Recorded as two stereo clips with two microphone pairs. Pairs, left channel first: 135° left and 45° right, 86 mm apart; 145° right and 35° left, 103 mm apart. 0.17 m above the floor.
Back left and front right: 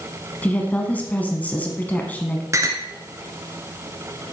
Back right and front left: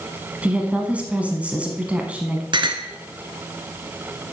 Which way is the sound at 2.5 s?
5° left.